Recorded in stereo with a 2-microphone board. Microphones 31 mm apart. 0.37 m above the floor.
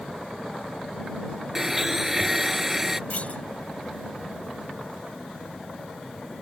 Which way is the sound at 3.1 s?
50° left (ahead or behind).